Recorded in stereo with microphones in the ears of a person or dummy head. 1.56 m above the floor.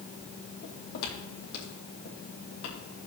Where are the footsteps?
55° left (ahead or behind), 3 m.